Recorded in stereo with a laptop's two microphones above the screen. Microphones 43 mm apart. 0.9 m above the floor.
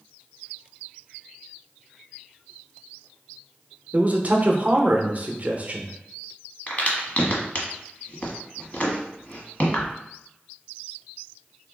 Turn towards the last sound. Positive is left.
turn(degrees=40)  # may be behind; listen again after turning